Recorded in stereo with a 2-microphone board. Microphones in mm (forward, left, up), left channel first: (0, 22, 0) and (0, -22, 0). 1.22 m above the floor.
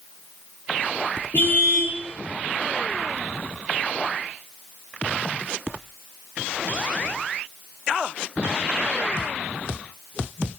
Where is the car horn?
55° left (ahead or behind), 9 m.